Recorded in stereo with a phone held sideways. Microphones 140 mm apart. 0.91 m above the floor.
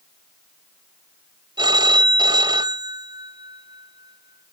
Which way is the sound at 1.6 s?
35° right (ahead or behind).